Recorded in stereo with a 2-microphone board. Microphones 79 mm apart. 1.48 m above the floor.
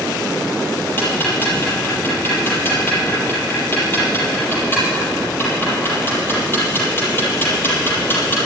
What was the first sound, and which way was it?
Ticking, 30° left (ahead or behind).